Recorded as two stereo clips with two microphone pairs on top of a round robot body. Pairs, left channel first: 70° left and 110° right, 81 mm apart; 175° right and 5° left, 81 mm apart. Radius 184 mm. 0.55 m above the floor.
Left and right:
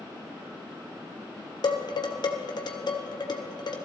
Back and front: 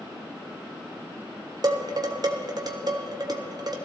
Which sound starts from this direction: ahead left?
Dishes clattering, at 1.6 s.